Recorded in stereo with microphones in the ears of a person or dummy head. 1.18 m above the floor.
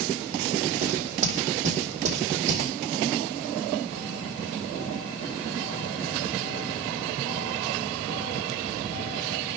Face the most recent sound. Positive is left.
turn(degrees=-45)  # may be behind; listen again after turning